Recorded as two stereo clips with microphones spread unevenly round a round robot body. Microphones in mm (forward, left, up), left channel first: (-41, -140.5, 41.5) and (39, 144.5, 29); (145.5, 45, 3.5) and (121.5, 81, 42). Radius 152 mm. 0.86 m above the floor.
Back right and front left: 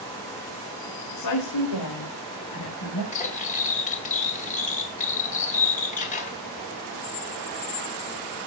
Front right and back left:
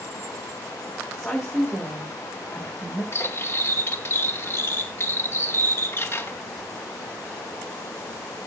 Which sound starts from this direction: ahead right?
Cutlery clinking, at 3.1 s.